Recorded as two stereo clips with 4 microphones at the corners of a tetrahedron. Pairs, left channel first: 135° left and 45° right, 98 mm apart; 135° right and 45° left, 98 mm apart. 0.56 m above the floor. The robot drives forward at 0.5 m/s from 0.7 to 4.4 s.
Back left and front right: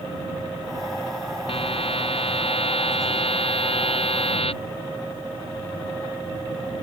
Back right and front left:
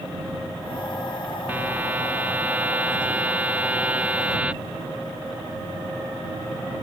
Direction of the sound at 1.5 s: 120° left.